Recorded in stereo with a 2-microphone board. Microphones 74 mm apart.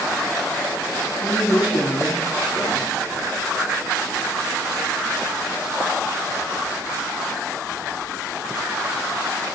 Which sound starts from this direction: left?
A man speaking, at 1.2 s.